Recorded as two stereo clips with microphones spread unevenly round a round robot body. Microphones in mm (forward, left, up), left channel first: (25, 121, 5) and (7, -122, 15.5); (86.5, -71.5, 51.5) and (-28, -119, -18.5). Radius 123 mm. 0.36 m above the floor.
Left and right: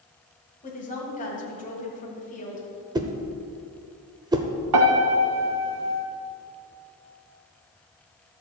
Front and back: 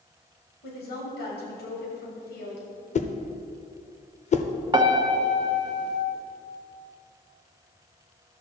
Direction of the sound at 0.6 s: 35° left.